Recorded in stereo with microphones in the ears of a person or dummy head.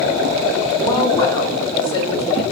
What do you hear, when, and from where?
0.8 s a woman speaking: 20° left (ahead or behind), 0.6 m